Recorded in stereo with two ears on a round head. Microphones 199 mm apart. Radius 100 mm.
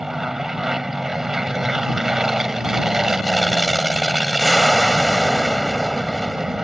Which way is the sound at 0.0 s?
Centre (ahead or behind).